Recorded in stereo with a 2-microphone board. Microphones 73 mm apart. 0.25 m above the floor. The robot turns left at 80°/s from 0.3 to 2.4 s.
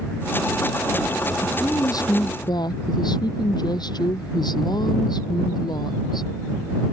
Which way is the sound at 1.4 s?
160° left.